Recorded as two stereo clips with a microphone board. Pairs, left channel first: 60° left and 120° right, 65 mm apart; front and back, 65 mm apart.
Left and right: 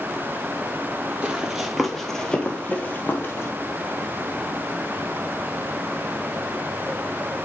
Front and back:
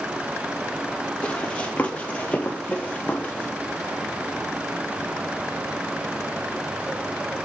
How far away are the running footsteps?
About 1.8 m.